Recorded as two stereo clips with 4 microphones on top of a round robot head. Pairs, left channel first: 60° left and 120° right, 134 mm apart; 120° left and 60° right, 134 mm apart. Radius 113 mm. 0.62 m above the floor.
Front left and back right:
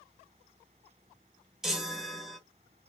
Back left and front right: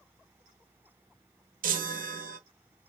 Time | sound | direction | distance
1.6 | a chime | 35° right | 1.1 m